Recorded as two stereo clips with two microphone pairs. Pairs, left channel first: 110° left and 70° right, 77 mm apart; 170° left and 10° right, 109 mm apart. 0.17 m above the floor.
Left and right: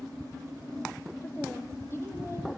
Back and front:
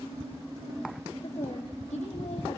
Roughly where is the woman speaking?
Behind.